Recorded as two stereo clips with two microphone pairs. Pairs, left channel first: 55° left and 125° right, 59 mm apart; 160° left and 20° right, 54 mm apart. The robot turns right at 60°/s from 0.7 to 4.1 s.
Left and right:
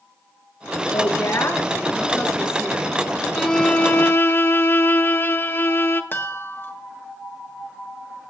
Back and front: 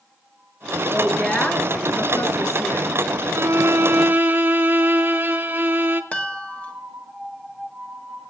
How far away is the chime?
About 1.5 m.